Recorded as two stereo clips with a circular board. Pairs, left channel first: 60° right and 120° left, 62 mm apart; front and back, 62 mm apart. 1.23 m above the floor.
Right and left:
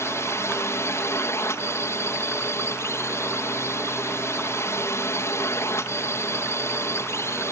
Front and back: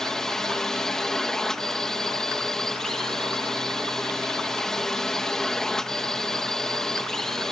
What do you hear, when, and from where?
0.0 s a drone: 80° right